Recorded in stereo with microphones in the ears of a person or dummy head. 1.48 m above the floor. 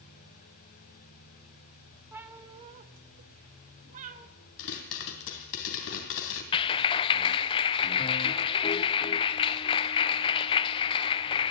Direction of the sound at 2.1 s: 5° right (ahead or behind).